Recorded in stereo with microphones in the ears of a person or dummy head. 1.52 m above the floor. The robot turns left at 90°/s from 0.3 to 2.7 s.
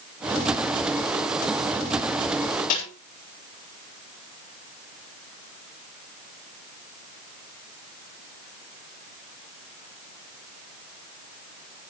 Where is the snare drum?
50° left (ahead or behind), 6.5 m.